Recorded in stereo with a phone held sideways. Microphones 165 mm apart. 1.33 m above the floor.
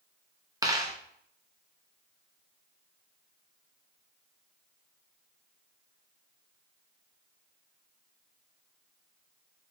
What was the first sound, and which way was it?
A dropped coin, 20° right (ahead or behind).